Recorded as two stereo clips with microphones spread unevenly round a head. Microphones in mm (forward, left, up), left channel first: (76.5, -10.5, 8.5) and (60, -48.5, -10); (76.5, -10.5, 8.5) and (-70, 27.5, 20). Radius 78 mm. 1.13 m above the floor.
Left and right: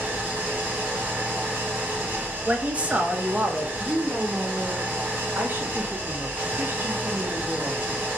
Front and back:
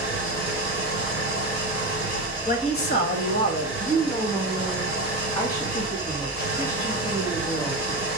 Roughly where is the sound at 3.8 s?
Right.